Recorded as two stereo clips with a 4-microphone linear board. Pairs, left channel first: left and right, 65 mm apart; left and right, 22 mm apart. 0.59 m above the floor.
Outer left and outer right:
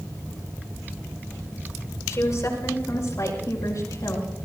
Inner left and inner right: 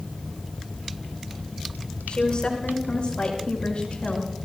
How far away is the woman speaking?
About 6 m.